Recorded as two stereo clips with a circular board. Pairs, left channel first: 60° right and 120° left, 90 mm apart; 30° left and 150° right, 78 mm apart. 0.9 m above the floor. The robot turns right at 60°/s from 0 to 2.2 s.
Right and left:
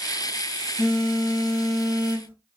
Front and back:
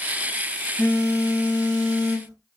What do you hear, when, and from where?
0.8 s a phone buzzing: 35° right, 1.3 m; by 2.3 s 50° left, 1.3 m